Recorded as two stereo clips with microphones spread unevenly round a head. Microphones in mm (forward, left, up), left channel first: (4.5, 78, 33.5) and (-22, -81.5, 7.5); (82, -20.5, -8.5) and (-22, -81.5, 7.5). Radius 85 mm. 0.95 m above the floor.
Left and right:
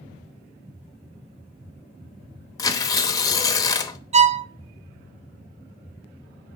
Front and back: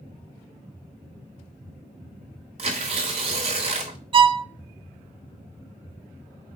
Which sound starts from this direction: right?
A violin, at 4.1 s.